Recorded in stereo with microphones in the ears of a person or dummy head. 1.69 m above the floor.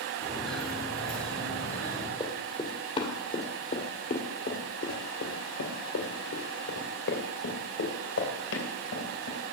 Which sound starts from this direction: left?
Running footsteps, at 2.2 s.